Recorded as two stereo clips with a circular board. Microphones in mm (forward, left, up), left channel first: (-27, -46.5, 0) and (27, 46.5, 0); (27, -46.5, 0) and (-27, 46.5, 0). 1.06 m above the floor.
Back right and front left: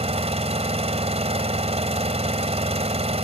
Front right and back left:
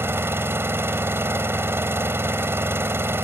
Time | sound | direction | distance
0.0 | an engine running | 50° left | ?